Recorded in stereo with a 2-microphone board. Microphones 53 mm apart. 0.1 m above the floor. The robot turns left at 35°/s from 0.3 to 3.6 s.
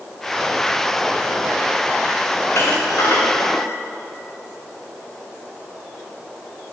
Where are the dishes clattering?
50° left (ahead or behind), 8.5 m; by 3.7 s 85° left, 8.5 m.